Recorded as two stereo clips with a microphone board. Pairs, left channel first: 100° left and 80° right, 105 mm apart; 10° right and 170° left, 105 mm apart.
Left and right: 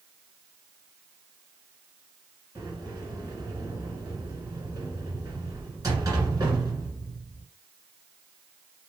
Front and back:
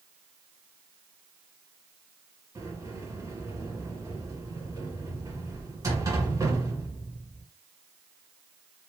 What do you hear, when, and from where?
2.5 s a sliding door: 135° right, 2.0 m